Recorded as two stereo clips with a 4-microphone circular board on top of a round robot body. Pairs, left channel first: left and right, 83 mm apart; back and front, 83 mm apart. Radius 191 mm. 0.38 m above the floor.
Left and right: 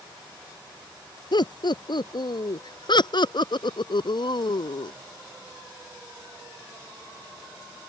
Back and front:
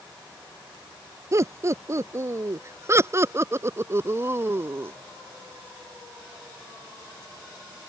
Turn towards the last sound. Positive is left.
turn(degrees=65)